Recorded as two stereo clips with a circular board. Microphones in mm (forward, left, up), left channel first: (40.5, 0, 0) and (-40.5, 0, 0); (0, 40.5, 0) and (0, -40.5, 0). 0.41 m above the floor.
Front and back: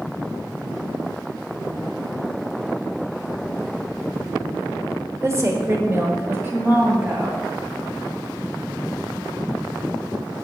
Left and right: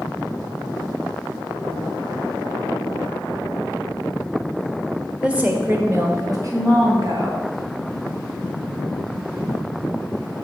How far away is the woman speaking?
About 1.2 m.